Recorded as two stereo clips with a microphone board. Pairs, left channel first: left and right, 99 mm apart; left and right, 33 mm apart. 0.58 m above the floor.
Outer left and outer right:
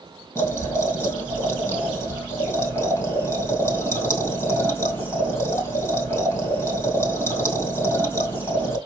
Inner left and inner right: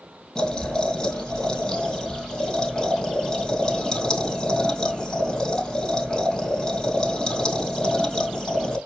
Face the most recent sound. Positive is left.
turn(degrees=25)  # may be behind; listen again after turning